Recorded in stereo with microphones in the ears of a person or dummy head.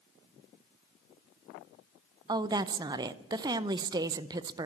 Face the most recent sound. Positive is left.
turn(degrees=-30)  # may be behind; listen again after turning